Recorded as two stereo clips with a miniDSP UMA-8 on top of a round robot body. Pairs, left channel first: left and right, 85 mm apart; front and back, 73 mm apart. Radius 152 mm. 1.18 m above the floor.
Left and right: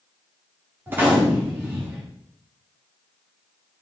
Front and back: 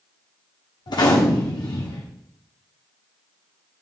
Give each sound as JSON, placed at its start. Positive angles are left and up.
{"t": 0.9, "sound": "a gunshot", "azimuth_deg": -20, "distance_m": 0.9}